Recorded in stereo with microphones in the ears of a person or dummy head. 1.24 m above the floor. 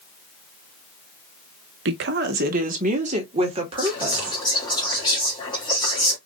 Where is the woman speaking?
65° right (ahead or behind), 0.9 m; by 4.4 s 25° right (ahead or behind), 1.9 m.